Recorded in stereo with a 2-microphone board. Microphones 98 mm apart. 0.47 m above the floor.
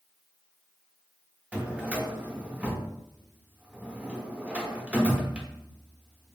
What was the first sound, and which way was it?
A drawer, 10° right (ahead or behind).